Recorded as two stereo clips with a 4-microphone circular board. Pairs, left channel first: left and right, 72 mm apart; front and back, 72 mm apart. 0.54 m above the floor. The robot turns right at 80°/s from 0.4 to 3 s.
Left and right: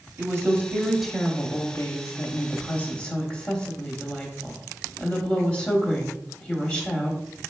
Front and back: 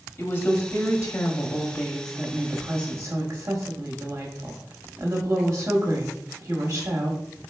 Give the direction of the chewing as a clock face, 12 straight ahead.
No chewing in this recording.